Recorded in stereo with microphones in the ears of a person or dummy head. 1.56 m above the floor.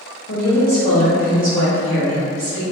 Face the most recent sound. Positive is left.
turn(degrees=-5)  # may be behind; listen again after turning